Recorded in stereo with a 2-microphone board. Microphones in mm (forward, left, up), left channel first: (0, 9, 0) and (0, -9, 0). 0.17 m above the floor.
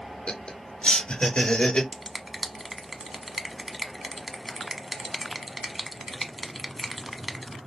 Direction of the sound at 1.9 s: 5° right (ahead or behind).